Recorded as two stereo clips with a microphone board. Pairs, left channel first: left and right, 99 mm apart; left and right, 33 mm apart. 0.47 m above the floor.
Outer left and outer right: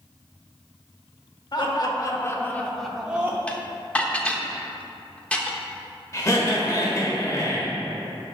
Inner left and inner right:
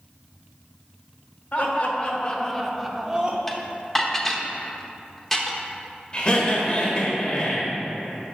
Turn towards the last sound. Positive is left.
turn(degrees=30)  # may be behind; listen again after turning